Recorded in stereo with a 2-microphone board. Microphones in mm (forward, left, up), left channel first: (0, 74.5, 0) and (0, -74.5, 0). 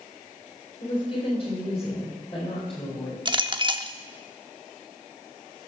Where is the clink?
30° right (ahead or behind), 0.8 m.